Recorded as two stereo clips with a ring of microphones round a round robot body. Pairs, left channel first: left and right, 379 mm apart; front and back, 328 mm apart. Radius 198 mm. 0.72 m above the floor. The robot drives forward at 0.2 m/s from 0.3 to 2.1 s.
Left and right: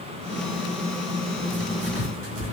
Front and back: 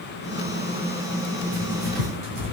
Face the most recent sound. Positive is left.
turn(degrees=-150)